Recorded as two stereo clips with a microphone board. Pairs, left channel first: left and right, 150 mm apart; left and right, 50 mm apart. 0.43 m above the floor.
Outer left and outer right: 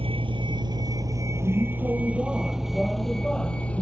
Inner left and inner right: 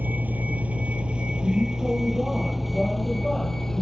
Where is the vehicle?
40° right (ahead or behind); by 3.8 s 10° left (ahead or behind).